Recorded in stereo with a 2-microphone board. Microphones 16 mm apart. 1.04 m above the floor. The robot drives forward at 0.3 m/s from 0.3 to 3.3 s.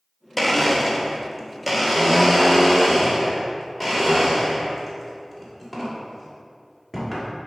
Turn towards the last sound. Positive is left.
turn(degrees=5)  # may be behind; listen again after turning